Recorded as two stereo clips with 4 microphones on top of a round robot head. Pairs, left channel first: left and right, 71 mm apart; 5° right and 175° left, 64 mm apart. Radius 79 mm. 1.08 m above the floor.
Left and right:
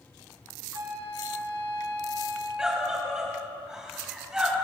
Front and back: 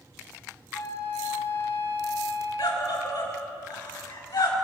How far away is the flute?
About 5.5 m.